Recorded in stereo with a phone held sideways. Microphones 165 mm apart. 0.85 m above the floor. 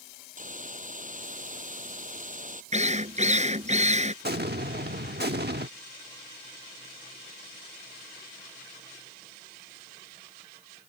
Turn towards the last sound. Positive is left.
turn(degrees=-75)  # may be behind; listen again after turning